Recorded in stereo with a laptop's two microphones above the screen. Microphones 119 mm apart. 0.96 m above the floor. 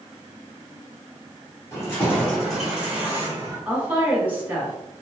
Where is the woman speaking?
15° right (ahead or behind), 2 m.